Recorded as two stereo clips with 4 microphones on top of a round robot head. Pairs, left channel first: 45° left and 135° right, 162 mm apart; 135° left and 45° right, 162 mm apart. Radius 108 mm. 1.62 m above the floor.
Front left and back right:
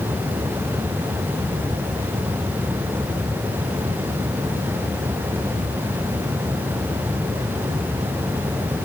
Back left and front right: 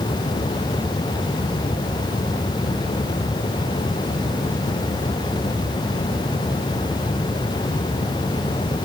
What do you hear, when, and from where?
Only background noise.